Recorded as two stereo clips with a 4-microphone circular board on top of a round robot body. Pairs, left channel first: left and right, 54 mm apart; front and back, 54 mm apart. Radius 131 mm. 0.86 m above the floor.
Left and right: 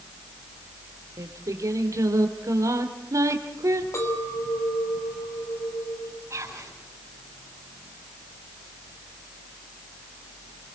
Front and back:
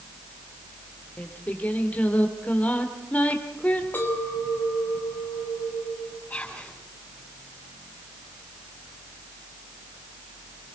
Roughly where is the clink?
Ahead left.